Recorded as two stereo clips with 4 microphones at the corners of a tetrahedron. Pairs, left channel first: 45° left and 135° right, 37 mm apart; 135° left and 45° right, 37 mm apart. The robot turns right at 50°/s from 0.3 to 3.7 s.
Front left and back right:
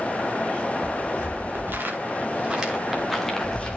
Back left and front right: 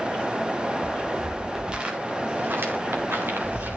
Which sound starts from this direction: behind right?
Footsteps, at 0.8 s.